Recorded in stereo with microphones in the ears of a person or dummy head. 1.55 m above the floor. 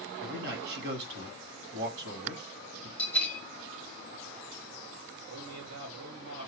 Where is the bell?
5° left (ahead or behind), 0.8 m.